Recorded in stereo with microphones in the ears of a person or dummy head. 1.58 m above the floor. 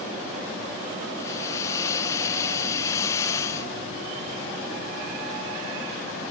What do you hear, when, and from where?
1.2 s a hiss: 20° left (ahead or behind), 0.9 m